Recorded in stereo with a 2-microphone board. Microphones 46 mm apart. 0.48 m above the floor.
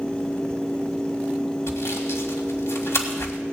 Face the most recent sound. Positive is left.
turn(degrees=75)  # may be behind; listen again after turning